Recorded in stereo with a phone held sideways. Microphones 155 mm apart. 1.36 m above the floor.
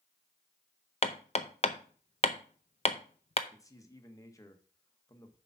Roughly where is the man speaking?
Left.